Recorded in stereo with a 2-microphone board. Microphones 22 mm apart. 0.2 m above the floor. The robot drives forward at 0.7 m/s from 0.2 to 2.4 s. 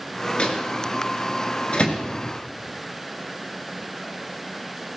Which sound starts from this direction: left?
A microwave, at 0.4 s.